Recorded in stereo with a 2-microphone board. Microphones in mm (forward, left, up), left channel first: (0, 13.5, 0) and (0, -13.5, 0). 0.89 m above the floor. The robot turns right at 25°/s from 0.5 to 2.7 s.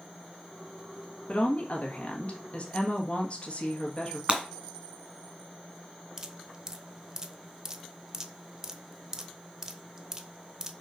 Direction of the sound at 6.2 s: 25° right (ahead or behind).